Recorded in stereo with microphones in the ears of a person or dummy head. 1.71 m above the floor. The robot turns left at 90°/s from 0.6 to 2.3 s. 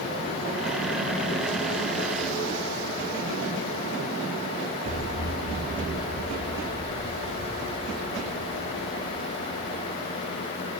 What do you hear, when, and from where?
4.8 s an explosion: 90° left, 0.8 m